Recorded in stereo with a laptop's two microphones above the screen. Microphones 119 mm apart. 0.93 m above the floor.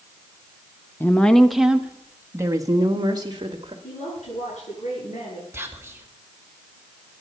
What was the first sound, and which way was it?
A woman speaking, 15° left (ahead or behind).